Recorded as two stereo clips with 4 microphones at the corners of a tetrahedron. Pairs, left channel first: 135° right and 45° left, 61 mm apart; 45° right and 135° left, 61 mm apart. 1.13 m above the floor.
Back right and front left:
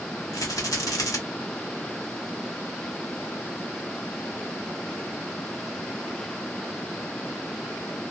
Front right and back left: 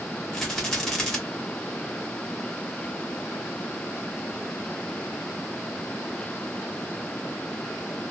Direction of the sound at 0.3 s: 130° right.